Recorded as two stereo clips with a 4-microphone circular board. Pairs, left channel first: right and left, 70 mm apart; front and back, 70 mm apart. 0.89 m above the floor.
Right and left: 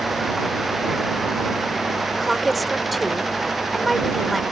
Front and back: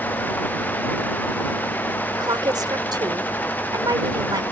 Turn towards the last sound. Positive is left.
turn(degrees=180)